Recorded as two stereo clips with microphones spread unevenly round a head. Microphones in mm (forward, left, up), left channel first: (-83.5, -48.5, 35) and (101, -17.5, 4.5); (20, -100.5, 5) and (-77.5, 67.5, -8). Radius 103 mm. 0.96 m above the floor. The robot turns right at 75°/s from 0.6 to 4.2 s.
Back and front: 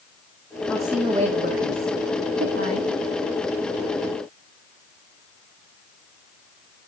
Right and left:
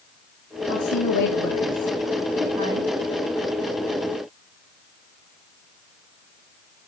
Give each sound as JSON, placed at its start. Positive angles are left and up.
{"t": 0.7, "sound": "a woman speaking", "azimuth_deg": -90, "distance_m": 1.7}